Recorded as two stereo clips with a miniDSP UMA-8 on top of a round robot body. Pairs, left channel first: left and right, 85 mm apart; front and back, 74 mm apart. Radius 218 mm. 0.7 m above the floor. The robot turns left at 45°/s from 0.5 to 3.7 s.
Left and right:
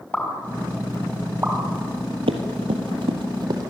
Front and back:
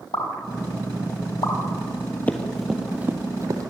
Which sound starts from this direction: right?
Running footsteps, at 2.3 s.